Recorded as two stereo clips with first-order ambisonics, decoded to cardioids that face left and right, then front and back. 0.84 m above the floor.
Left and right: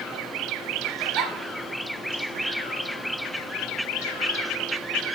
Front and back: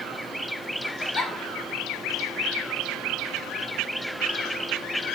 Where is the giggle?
55° right, 1.5 m.